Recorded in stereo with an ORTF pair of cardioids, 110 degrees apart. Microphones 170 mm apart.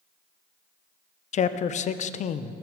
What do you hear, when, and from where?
1.3 s a man speaking: 45° left, 0.7 m